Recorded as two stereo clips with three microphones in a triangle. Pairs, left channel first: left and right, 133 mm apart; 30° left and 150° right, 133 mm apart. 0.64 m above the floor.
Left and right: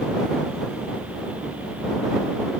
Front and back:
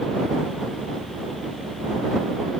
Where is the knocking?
I don't hear knocking.